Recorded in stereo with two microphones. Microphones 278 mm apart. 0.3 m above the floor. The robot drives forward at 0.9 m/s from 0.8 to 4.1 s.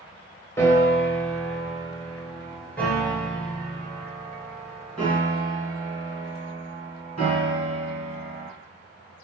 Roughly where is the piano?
Centre.